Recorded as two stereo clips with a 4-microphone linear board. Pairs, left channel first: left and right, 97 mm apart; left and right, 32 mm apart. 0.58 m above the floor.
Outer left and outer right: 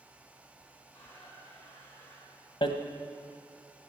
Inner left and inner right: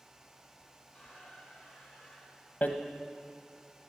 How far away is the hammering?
About 1.0 m.